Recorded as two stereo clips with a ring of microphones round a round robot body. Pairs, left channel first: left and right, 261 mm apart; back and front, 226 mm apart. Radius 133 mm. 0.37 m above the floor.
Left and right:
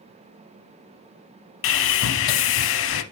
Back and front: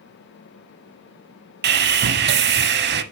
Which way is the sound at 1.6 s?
45° left.